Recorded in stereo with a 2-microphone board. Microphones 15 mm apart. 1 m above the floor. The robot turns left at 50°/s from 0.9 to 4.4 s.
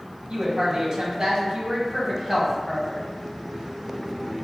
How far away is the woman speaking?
About 1.3 m.